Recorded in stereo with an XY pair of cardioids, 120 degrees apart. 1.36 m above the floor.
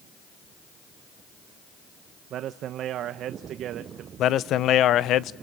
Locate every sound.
2.3 s a man speaking: 65° right, 1.0 m
4.2 s a man speaking: 65° left, 1.0 m